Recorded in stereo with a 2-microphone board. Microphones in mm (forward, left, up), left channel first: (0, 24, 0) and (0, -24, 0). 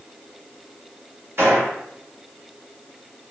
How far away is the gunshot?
About 1.5 m.